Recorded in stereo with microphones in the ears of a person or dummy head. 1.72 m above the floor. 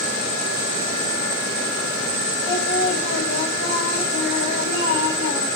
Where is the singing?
70° left (ahead or behind), 6.5 m.